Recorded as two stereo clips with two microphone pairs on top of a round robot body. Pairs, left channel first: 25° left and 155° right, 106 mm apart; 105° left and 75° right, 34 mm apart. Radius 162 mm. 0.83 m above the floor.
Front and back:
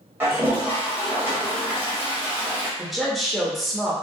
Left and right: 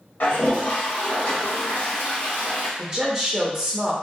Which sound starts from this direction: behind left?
A toilet flushing, at 0.2 s.